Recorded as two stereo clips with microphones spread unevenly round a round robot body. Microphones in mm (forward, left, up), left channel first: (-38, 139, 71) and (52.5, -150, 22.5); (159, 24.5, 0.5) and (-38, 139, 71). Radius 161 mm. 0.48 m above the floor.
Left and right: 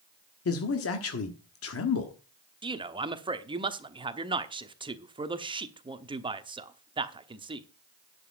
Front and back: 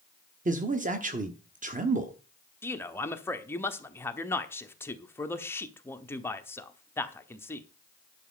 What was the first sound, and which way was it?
A man speaking, 90° left.